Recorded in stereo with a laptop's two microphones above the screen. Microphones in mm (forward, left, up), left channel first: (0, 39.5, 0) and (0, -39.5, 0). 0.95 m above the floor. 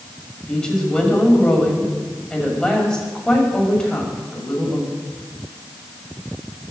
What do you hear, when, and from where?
0.5 s a woman speaking: 10° left (ahead or behind), 6 m